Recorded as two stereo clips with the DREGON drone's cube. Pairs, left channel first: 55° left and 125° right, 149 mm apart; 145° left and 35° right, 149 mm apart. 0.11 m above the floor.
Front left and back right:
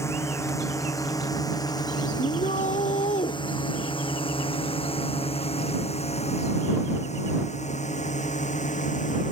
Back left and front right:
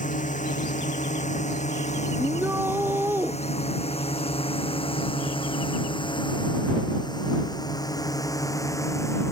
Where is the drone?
125° left; by 9.3 s 75° left.